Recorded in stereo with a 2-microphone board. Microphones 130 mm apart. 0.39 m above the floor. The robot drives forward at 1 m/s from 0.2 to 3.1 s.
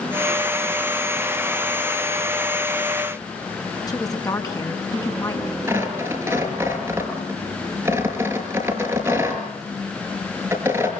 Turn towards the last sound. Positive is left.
turn(degrees=-15)  # may be behind; listen again after turning